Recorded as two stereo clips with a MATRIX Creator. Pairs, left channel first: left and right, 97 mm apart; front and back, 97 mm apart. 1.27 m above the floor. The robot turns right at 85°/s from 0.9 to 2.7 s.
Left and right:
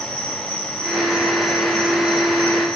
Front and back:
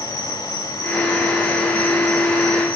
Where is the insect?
135° left, 4.5 m; by 2.8 s 75° right, 4.5 m.